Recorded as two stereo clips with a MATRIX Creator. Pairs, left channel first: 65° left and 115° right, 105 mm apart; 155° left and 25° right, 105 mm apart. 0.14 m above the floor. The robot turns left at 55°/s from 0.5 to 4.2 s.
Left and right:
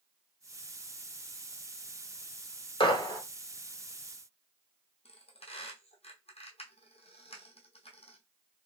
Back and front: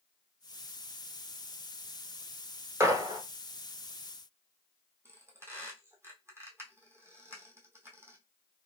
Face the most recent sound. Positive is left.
turn(degrees=45)